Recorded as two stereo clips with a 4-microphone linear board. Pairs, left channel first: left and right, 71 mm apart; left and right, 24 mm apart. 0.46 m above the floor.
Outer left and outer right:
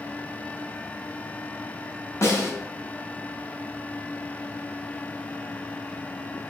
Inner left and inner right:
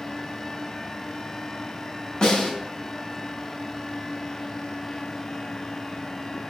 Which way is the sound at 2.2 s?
40° left (ahead or behind).